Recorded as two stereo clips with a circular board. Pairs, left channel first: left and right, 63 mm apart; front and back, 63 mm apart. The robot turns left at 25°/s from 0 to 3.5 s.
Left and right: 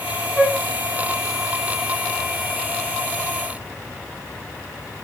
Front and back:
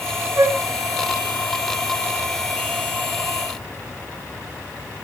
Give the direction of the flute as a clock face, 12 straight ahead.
6 o'clock.